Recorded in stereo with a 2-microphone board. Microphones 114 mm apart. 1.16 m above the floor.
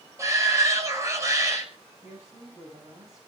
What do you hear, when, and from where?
0.2 s a shout: 25° right (ahead or behind), 6.5 m
2.0 s a woman speaking: 35° right (ahead or behind), 7.5 m